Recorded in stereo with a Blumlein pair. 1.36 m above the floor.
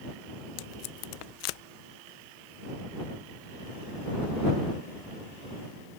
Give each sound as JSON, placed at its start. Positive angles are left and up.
{"t": 0.6, "sound": "tape being pulled", "azimuth_deg": 45}